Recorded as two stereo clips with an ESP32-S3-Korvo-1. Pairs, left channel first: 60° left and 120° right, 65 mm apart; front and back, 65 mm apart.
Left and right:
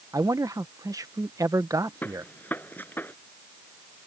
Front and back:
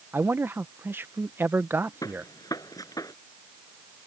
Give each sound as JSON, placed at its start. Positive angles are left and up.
{"t": 0.1, "sound": "a man speaking", "azimuth_deg": -130}
{"t": 2.0, "sound": "a gunshot", "azimuth_deg": 0}